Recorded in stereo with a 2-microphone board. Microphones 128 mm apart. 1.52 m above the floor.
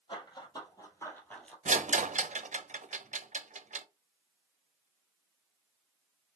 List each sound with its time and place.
0.1 s running footsteps: 40° left (ahead or behind), 2.5 m; by 1.6 s 5° left (ahead or behind), 1.8 m
1.6 s a rattle: 70° right (ahead or behind), 0.6 m